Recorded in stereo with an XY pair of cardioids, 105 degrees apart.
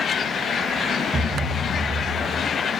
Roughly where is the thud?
Ahead right.